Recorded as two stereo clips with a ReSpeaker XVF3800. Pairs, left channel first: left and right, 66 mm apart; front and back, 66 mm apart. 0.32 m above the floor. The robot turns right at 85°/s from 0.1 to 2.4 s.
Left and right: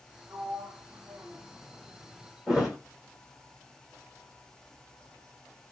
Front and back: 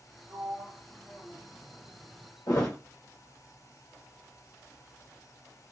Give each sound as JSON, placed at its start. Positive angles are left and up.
{"t": 0.3, "sound": "a sliding door", "azimuth_deg": -150, "distance_m": 2.0}
{"t": 2.5, "sound": "a thud", "azimuth_deg": -10, "distance_m": 1.5}